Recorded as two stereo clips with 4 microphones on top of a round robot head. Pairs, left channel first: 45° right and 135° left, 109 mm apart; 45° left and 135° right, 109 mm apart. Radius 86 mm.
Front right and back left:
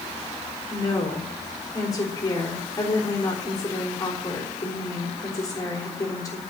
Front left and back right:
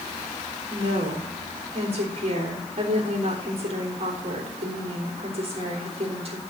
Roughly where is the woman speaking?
Right.